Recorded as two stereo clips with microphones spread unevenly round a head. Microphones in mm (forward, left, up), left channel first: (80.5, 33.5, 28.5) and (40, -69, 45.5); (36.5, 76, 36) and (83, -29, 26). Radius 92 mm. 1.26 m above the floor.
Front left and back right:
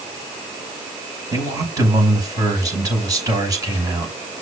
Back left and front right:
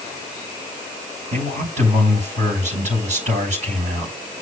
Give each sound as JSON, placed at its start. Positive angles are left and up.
{"t": 1.3, "sound": "a man speaking", "azimuth_deg": -55, "distance_m": 6.5}